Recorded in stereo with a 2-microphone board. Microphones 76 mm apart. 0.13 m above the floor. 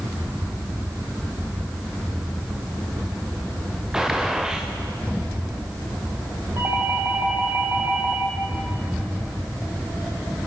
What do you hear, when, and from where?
3.9 s a gunshot: 5° right (ahead or behind), 3 m
6.6 s a doorbell: 35° right (ahead or behind), 5.5 m